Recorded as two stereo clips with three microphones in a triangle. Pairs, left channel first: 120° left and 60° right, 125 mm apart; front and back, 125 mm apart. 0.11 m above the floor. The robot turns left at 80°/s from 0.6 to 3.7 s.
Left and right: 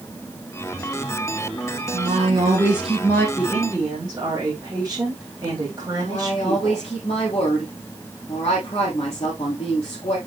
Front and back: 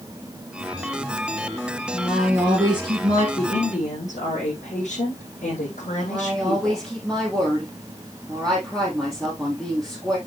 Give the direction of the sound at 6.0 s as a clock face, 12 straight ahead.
9 o'clock.